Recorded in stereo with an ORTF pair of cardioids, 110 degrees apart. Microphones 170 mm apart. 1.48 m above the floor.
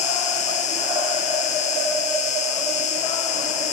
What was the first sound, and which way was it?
An insect, 45° left.